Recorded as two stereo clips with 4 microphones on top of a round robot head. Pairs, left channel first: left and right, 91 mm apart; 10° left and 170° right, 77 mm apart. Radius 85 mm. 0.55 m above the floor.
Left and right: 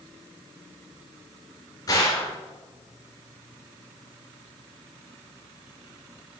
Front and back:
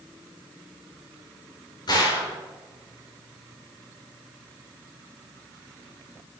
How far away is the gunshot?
About 3 m.